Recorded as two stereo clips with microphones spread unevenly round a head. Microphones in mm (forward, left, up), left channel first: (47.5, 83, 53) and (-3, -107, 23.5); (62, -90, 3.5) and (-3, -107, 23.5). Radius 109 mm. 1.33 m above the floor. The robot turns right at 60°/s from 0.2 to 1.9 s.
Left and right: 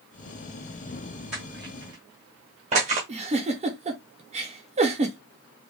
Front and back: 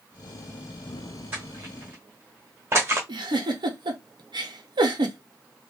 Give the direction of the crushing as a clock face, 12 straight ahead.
7 o'clock.